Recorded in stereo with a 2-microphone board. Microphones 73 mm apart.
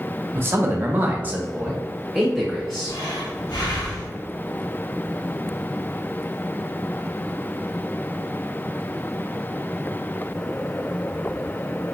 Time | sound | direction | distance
0.3 | a man speaking | 30° right (ahead or behind) | 0.9 m
2.9 | breathing | 80° left | 1.8 m